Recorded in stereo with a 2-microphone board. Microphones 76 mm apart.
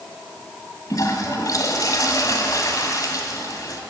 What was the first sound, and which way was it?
A toilet flushing, 50° left (ahead or behind).